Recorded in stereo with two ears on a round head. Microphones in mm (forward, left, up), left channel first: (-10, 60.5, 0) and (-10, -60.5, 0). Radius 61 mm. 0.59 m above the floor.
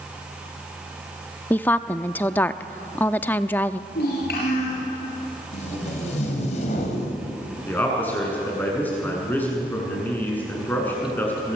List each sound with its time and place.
1.5 s a woman speaking: 15° left (ahead or behind), 0.6 m
3.9 s a child speaking: 75° left (ahead or behind), 6.5 m
5.5 s tape being pulled: 55° left (ahead or behind), 4.5 m
7.7 s a man speaking: 15° left (ahead or behind), 7 m